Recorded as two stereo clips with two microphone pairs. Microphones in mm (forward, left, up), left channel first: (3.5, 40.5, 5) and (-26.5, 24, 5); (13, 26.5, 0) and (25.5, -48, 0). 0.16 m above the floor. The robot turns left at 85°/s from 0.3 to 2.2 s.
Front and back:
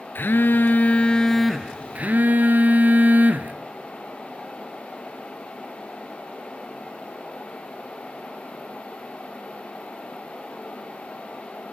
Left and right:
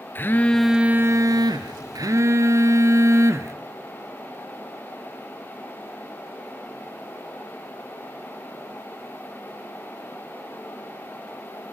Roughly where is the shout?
I don't hear a shout.